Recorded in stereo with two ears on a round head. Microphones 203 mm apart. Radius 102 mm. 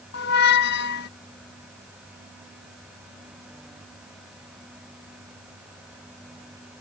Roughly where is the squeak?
Left.